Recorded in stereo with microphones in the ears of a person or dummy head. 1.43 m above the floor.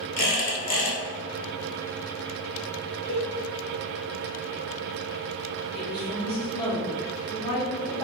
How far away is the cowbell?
About 0.6 m.